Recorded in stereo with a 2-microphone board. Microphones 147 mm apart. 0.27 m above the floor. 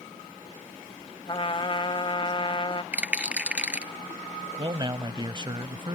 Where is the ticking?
No ticking in this recording.